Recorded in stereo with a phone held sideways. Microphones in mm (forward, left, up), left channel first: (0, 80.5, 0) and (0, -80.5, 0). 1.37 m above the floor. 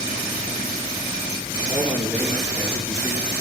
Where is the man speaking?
30° right (ahead or behind), 4.5 m.